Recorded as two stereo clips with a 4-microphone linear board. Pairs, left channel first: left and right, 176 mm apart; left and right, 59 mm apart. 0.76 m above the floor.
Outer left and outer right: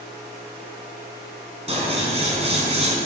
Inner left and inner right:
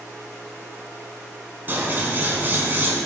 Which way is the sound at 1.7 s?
35° right (ahead or behind).